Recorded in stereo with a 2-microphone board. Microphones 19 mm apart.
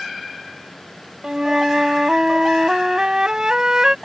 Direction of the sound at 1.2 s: 30° right (ahead or behind).